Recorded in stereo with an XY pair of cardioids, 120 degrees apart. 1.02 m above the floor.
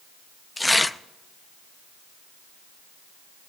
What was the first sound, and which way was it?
Tearing paper, 10° left.